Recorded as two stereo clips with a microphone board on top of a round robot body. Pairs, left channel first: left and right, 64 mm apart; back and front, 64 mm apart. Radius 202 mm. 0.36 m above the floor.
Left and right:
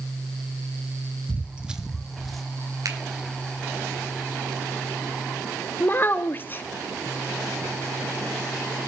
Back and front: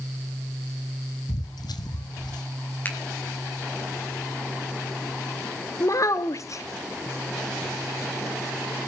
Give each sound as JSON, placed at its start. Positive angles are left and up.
{"t": 1.3, "sound": "footsteps", "azimuth_deg": -155, "distance_m": 0.9}
{"t": 2.9, "sound": "a finger snap", "azimuth_deg": -120, "distance_m": 4.5}
{"t": 5.8, "sound": "a child speaking", "azimuth_deg": 145, "distance_m": 1.0}